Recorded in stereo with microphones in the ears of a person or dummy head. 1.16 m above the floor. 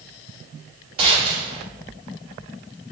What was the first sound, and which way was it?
A gunshot, 30° right (ahead or behind).